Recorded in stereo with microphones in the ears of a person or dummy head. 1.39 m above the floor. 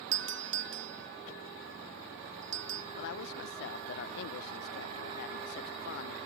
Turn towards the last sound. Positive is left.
turn(degrees=55)  # may be behind; listen again after turning